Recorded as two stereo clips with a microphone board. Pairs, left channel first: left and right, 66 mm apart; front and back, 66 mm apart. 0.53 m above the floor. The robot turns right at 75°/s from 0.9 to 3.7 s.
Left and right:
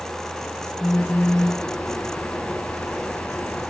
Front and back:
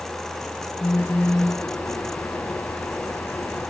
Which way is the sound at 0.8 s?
50° left.